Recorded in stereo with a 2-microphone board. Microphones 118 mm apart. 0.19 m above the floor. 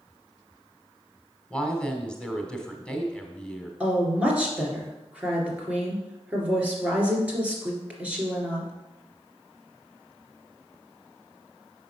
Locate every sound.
1.5 s a woman speaking: 10° left (ahead or behind), 1.2 m
3.8 s a woman speaking: 10° right (ahead or behind), 2.5 m